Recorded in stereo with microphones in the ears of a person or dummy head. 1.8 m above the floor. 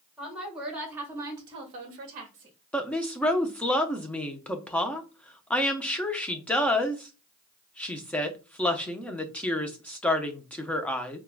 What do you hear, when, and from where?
0.2 s a woman speaking: 5° right (ahead or behind), 1.9 m; by 2.5 s 35° right (ahead or behind), 0.9 m
2.7 s a woman speaking: 5° left (ahead or behind), 0.5 m